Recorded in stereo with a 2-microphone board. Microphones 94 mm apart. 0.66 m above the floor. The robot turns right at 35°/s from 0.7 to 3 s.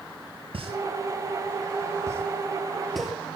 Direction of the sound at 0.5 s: 80° right.